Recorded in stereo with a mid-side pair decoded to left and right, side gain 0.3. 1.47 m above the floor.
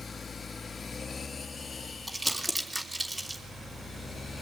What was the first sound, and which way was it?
Crumpling, 20° right.